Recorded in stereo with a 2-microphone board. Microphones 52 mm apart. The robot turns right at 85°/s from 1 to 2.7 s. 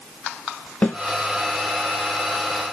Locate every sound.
0.8 s a snare drum: 35° left (ahead or behind), 1.5 m